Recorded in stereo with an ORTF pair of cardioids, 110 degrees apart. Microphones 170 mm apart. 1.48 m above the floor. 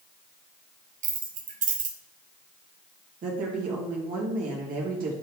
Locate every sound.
1.0 s keys jangling: 50° right, 1.4 m
3.2 s a woman speaking: 55° right, 2.5 m